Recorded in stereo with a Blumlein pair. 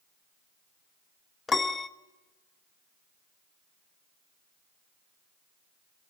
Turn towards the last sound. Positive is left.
turn(degrees=15)